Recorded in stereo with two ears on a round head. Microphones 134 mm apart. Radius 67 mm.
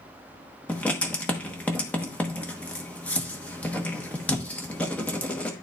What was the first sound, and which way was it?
Writing, 10° left (ahead or behind).